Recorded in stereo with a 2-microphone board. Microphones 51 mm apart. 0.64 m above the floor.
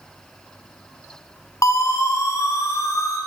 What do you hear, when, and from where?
1.6 s a siren: 70° left (ahead or behind), 5.5 m; by 3.2 s 80° left, 7 m